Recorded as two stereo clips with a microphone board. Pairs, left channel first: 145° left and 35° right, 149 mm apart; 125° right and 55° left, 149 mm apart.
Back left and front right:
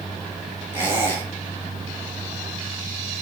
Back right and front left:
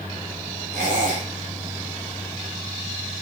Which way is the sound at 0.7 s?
75° left.